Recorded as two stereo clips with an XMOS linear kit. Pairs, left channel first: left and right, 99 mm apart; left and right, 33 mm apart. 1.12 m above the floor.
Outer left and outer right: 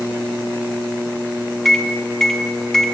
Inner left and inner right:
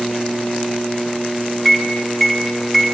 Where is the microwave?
5° left (ahead or behind), 0.6 m.